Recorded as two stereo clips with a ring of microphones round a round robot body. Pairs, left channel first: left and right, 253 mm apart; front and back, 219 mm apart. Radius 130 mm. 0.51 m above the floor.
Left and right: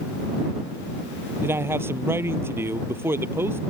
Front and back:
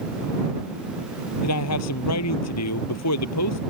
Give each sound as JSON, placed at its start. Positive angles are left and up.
{"t": 1.4, "sound": "a man speaking", "azimuth_deg": -10}